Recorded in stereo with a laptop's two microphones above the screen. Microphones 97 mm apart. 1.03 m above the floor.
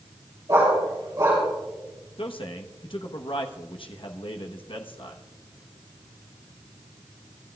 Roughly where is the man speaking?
Left.